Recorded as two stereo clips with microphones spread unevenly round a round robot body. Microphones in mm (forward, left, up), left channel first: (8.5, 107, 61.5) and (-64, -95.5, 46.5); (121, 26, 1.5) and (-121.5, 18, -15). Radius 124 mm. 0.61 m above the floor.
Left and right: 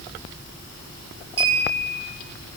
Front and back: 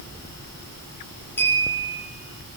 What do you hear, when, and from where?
1.4 s a clink: 80° right, 9.5 m